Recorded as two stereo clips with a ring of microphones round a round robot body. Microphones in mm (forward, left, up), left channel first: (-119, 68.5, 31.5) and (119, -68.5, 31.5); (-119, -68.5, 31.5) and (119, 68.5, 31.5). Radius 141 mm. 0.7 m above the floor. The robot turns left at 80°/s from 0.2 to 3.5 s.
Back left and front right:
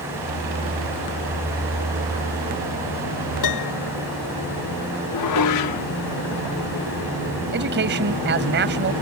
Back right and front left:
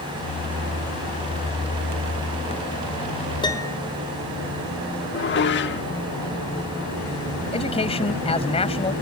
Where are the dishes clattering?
160° left.